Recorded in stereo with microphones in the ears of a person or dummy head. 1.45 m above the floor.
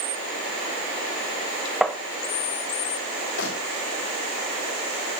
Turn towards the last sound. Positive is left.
turn(degrees=85)